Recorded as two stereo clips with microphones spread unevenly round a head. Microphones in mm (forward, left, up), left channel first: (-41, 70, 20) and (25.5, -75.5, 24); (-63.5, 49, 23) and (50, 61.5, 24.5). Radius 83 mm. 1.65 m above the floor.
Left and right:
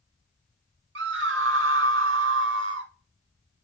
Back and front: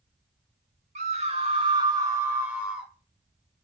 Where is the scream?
40° right, 2.5 m; by 2.9 s 80° right, 3 m.